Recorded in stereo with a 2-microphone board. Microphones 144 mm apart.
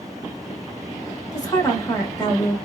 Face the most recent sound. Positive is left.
turn(degrees=25)  # may be behind; listen again after turning